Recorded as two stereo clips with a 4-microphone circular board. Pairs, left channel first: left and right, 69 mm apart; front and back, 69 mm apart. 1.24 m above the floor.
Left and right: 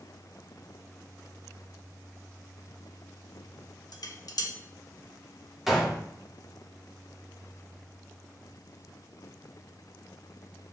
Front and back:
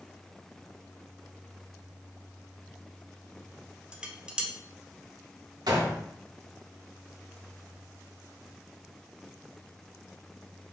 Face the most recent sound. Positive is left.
turn(degrees=-175)